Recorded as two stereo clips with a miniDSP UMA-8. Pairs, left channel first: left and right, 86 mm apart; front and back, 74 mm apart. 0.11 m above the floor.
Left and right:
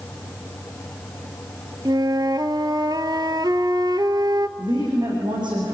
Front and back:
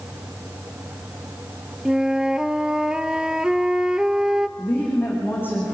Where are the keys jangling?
I don't hear keys jangling.